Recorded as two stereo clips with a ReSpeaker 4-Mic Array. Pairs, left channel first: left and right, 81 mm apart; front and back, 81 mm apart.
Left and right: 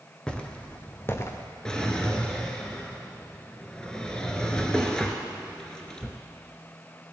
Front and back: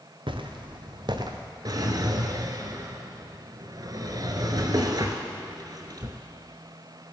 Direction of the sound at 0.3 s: 170° left.